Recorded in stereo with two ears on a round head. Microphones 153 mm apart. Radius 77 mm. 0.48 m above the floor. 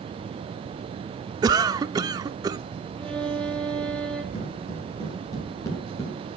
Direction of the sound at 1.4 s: 20° right (ahead or behind).